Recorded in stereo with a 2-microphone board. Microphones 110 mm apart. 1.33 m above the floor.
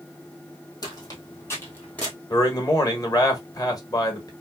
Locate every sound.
0.8 s footsteps: 35° left (ahead or behind), 1.8 m; by 2.1 s 10° left (ahead or behind), 1.6 m
2.3 s a man speaking: 35° left (ahead or behind), 1.2 m